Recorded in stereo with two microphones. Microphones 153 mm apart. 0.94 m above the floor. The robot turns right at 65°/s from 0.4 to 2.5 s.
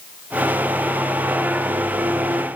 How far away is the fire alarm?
I don't hear a fire alarm.